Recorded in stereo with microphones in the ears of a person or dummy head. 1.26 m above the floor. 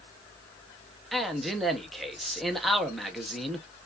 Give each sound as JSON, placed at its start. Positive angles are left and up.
{"t": 1.1, "sound": "a man speaking", "side_deg": 0, "distance_m": 0.9}